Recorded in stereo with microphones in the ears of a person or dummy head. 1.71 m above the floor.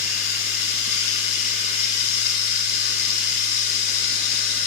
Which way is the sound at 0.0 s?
55° left (ahead or behind).